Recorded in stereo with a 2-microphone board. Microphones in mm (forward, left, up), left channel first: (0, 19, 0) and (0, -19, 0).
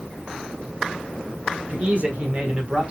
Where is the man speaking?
40° right (ahead or behind), 1.5 m; by 2.9 s 30° right (ahead or behind), 1.4 m.